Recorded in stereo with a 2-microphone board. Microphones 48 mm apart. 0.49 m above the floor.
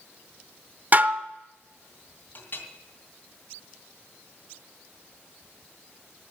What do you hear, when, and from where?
0.9 s dishes clattering: 40° right (ahead or behind), 0.7 m
2.4 s a clink: 45° left (ahead or behind), 2.5 m